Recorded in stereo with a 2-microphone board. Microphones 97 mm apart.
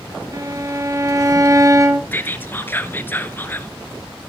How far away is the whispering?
About 1.3 m.